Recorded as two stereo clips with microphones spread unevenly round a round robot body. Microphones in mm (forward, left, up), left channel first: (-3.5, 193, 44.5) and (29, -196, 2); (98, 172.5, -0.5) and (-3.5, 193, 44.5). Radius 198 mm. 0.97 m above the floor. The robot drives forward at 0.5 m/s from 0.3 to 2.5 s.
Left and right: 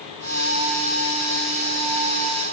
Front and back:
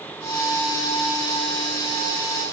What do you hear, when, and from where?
Only background noise.